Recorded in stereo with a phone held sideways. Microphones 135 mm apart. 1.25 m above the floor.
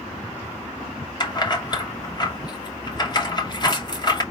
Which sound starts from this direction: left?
Keys jangling, at 1.2 s.